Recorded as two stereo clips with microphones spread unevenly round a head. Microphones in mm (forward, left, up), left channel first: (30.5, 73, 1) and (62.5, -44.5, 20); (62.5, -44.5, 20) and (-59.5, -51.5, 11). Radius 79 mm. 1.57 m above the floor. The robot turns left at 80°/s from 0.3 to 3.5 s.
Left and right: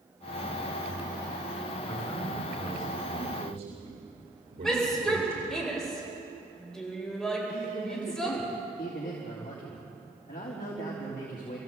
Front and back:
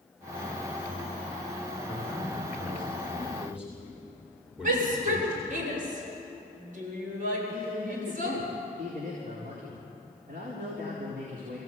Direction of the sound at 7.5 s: 145° left.